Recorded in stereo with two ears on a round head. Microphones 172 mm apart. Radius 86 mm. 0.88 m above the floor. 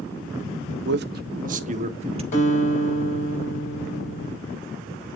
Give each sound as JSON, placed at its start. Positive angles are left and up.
{"t": 0.8, "sound": "a man speaking", "side_deg": -60, "distance_m": 0.9}
{"t": 2.3, "sound": "a guitar", "side_deg": 35, "distance_m": 4.0}